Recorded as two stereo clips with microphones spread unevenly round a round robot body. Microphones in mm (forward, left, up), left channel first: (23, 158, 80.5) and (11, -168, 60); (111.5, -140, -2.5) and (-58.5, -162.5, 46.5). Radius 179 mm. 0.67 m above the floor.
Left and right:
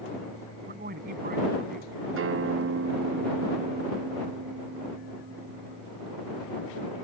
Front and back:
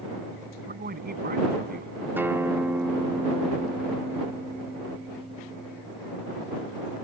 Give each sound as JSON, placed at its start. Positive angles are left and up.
{"t": 0.7, "sound": "a man speaking", "azimuth_deg": -155}
{"t": 2.2, "sound": "a guitar", "azimuth_deg": -80}